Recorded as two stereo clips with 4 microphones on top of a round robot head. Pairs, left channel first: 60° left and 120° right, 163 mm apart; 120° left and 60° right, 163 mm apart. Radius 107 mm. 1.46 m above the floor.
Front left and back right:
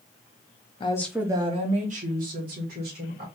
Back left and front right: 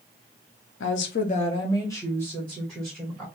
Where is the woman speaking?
120° left, 0.5 m; by 3.2 s 150° right, 2 m.